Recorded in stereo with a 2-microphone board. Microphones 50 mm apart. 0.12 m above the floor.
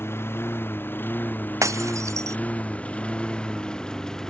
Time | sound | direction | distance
0.0 | a lawn mower | 50° left (ahead or behind) | ?
1.6 | breaking glass | 85° right | ?